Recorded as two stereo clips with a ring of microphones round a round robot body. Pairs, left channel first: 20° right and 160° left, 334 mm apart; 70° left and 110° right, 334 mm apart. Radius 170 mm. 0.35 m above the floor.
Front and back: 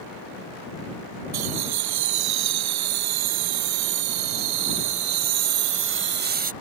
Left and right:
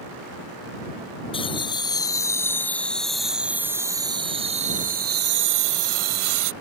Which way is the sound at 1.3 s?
140° left.